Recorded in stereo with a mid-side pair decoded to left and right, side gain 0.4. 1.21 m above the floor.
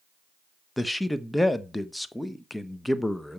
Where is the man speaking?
5° left, 0.9 m.